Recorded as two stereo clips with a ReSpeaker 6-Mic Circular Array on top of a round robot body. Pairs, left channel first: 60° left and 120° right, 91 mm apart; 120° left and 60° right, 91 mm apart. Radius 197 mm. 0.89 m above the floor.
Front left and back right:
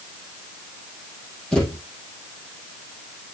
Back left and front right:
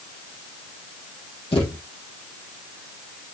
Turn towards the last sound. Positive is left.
turn(degrees=140)